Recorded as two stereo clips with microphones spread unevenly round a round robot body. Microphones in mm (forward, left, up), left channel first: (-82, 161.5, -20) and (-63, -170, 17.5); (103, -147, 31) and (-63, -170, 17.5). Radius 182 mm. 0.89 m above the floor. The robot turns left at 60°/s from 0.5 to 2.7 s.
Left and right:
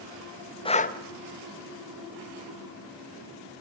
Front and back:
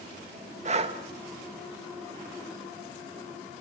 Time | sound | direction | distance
0.7 | breathing | 160° left | 1.1 m